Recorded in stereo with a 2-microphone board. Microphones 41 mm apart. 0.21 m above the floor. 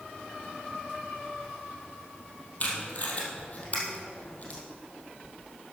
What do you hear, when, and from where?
2.6 s tape being pulled: 35° left (ahead or behind), 3 m